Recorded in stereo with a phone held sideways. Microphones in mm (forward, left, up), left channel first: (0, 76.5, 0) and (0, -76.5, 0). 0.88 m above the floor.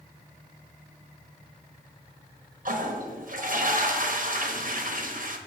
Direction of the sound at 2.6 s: 60° right (ahead or behind).